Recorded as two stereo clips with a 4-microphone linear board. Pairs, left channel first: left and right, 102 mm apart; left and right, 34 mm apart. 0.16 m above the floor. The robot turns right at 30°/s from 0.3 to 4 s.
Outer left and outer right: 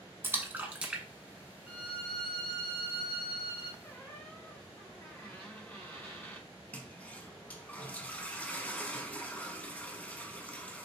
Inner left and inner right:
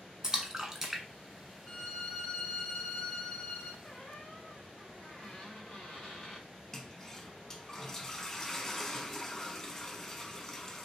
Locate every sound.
0.2 s a splash: 20° right (ahead or behind), 0.7 m; by 1.0 s 10° right (ahead or behind), 0.7 m
1.7 s a violin: 15° right, 1.1 m; by 3.7 s 45° left, 1.1 m
3.8 s a squeak: 15° left (ahead or behind), 1.6 m; by 6.5 s 20° left (ahead or behind), 1.6 m
6.7 s a toilet flushing: 15° left (ahead or behind), 0.6 m